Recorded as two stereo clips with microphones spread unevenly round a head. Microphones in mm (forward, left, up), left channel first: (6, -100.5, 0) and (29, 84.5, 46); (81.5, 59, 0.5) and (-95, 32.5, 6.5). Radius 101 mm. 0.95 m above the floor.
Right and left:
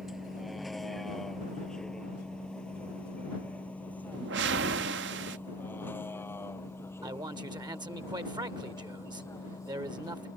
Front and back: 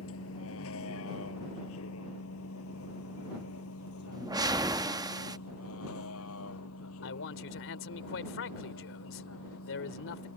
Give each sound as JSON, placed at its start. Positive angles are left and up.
{"t": 0.0, "sound": "a vehicle", "azimuth_deg": -5}
{"t": 4.1, "sound": "a whoosh", "azimuth_deg": 120}
{"t": 7.0, "sound": "a man speaking", "azimuth_deg": 15}